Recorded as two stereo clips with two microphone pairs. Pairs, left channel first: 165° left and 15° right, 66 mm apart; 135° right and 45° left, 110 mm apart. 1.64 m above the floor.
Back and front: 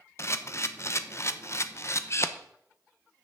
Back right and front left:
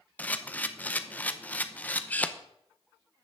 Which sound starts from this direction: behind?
A camera shutter, at 0.2 s.